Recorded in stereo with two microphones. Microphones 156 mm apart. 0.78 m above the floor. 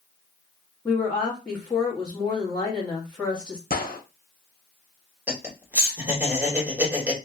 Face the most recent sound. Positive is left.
turn(degrees=-10)  # may be behind; listen again after turning